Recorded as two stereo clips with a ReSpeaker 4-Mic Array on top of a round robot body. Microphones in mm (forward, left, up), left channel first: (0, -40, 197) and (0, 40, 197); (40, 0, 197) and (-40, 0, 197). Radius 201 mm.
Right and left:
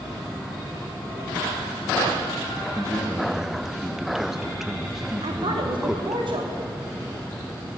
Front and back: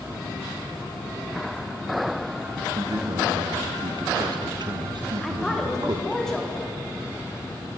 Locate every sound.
2.8 s a man speaking: 175° left, 1.3 m
5.2 s a woman speaking: 85° left, 2.5 m